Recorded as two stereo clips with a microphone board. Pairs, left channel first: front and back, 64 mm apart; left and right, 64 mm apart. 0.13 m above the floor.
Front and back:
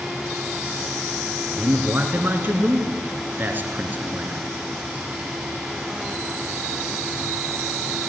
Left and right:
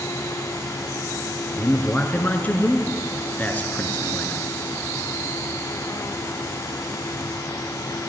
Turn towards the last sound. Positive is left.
turn(degrees=140)